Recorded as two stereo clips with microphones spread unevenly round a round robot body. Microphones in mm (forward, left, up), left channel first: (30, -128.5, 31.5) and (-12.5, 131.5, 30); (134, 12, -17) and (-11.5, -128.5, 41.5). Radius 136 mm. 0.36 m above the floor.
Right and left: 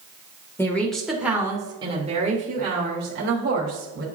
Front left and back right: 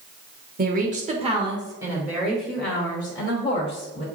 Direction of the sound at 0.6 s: 150° right.